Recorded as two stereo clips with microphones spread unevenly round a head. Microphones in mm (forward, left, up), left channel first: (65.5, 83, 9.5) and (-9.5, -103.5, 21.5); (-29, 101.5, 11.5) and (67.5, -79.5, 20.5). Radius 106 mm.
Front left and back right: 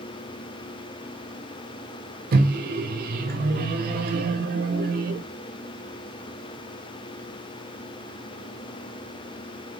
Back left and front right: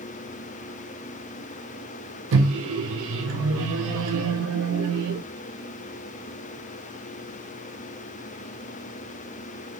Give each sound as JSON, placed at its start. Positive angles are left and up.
{"t": 2.3, "sound": "a microwave", "azimuth_deg": -75, "distance_m": 0.6}